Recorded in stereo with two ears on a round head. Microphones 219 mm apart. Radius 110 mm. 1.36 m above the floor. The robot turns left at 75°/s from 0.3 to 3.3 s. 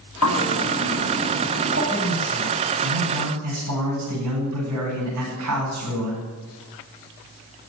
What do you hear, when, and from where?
0.2 s a bird: 80° left, 7.5 m; by 1.8 s 30° right, 7.5 m
1.9 s a man speaking: straight ahead, 9 m; by 6.2 s 105° right, 9 m